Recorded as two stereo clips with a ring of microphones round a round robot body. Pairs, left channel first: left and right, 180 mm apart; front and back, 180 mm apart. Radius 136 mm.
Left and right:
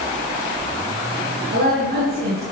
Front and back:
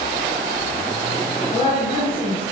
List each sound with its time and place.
1.5 s a woman speaking: 60° right, 6.5 m